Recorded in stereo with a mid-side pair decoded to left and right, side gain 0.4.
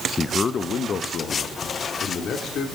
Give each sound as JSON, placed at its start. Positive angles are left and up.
{"t": 0.2, "sound": "a man speaking", "azimuth_deg": 35, "distance_m": 0.6}